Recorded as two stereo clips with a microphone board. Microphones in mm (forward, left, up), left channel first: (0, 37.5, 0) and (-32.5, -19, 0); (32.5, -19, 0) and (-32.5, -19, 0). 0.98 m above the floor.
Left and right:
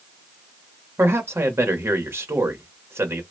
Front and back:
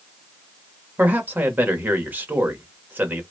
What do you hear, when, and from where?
1.0 s a man speaking: 135° right, 1.1 m